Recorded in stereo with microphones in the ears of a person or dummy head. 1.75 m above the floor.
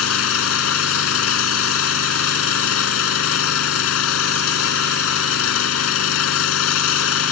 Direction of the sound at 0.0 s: 80° left.